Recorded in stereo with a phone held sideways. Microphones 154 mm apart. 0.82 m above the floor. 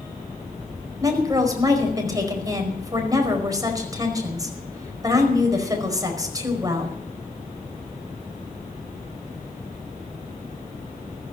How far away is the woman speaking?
About 4.5 m.